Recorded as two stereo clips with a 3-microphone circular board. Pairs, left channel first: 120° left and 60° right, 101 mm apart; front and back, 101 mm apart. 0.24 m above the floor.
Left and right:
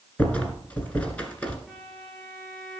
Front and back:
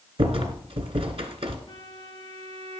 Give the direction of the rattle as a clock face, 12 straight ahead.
5 o'clock.